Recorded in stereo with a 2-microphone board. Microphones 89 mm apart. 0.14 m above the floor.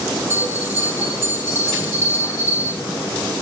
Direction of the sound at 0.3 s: 25° right (ahead or behind).